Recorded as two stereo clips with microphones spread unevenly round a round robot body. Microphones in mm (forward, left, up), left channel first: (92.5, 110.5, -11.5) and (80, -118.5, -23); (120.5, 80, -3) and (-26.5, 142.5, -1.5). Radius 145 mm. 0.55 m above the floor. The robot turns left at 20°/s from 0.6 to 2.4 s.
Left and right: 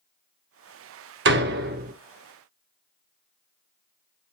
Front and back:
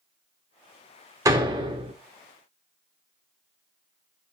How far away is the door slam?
About 0.7 m.